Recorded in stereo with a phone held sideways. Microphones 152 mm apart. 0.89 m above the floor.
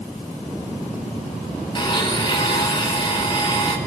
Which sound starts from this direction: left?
A blender, at 1.8 s.